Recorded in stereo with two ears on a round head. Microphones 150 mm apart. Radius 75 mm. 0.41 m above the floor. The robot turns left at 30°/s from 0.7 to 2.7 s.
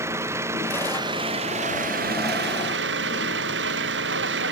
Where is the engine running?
15° right; by 4.5 s 75° right.